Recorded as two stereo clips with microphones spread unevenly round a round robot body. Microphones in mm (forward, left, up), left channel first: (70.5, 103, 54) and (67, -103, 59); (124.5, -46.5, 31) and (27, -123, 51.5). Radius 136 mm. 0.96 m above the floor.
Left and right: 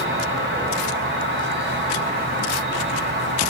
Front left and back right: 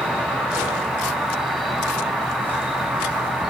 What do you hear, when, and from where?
0.0 s an insect: 60° right, 0.7 m